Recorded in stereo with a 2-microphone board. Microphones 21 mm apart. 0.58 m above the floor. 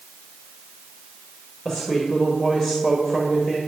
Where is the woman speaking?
30° left (ahead or behind), 1.8 m.